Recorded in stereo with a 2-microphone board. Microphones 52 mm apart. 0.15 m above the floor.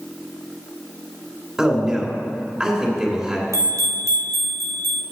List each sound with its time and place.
1.6 s a man speaking: 15° right (ahead or behind), 2 m
3.5 s a bell: 75° right (ahead or behind), 1.0 m